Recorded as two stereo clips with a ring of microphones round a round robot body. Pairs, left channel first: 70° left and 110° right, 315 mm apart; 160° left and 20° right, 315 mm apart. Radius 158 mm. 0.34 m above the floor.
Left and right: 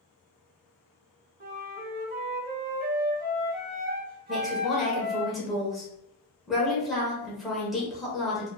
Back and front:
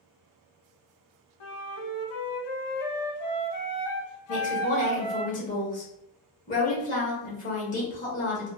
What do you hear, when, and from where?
1.4 s a flute: 175° right, 0.6 m
4.3 s a woman speaking: 160° left, 0.9 m